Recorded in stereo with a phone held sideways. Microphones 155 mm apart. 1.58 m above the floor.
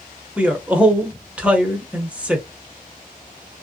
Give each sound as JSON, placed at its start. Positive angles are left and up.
{"t": 0.4, "sound": "a man speaking", "side_deg": -10, "distance_m": 0.8}